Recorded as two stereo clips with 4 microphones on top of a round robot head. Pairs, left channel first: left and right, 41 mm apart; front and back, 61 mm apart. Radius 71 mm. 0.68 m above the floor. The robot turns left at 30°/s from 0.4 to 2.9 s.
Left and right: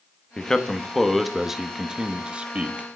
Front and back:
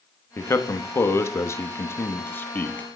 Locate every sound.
0.4 s a man speaking: 20° left, 1.0 m; by 2.9 s 50° right, 1.0 m